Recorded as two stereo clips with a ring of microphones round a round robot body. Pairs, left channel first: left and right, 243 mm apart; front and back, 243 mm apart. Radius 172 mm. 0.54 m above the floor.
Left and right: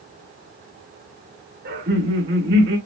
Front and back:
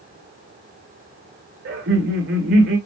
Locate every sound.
1.6 s laughter: 135° right, 1.9 m